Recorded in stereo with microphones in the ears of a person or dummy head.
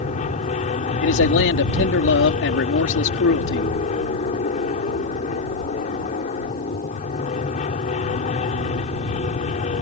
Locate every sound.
0.0 s an aircraft: 40° left (ahead or behind)
1.0 s a man speaking: 75° left (ahead or behind)